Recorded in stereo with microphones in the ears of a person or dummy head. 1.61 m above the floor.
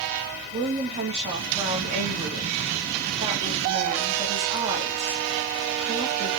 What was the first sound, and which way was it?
A woman speaking, 30° right (ahead or behind).